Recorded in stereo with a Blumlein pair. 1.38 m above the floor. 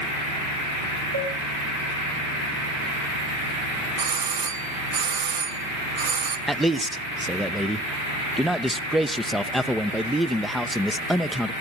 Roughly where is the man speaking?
Ahead.